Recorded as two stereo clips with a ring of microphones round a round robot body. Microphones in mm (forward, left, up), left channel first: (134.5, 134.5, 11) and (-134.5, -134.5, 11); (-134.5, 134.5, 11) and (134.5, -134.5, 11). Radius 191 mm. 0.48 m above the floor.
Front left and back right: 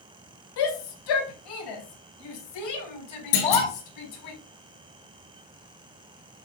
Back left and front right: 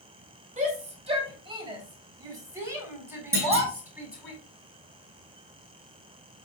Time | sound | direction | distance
0.6 | a shout | 25° left | 2.5 m
3.3 | a clunk | 40° left | 5.5 m